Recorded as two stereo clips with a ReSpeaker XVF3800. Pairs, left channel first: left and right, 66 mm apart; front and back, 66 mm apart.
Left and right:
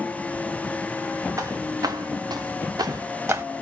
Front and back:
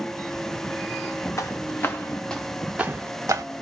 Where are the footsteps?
45° right, 1.5 m; by 3.4 s 140° right, 1.1 m.